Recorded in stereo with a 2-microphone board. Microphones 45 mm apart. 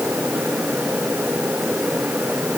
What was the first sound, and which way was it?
Only background noise.